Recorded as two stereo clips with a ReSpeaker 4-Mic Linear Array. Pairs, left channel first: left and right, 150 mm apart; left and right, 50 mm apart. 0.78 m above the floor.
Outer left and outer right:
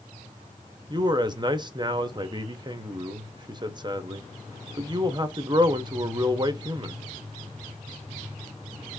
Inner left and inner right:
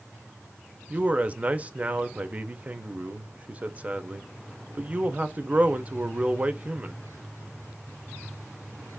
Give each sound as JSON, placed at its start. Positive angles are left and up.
{"t": 0.9, "sound": "a man speaking", "side_deg": -30, "distance_m": 0.6}